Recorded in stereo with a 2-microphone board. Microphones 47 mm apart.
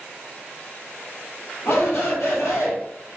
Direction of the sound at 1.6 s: 70° left (ahead or behind).